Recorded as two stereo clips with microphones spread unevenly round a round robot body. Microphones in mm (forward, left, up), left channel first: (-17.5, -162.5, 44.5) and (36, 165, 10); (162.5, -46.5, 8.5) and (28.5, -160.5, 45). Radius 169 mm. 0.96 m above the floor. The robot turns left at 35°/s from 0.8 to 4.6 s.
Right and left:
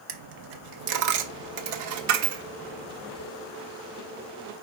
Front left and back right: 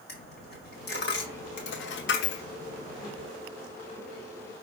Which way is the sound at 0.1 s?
90° left.